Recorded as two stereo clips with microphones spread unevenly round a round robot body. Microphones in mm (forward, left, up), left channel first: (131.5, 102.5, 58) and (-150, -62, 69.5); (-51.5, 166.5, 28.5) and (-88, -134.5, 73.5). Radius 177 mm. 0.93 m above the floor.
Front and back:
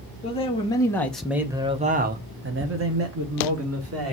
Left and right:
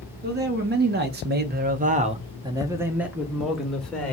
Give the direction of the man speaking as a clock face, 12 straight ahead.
1 o'clock.